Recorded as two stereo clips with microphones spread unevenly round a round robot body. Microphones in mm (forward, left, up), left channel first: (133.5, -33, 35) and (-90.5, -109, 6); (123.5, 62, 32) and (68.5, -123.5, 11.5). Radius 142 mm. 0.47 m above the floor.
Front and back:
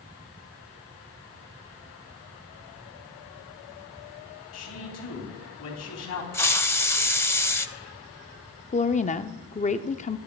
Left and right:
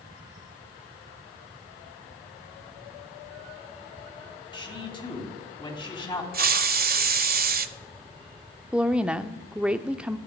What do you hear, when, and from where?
4.5 s a man speaking: 10° left, 4 m
6.3 s a hiss: 60° right, 0.8 m
8.7 s a woman speaking: 30° right, 0.8 m